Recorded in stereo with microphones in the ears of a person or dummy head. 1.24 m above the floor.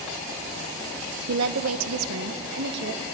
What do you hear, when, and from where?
1.3 s a woman speaking: 70° right (ahead or behind), 0.7 m; by 3.0 s 60° right (ahead or behind), 1.4 m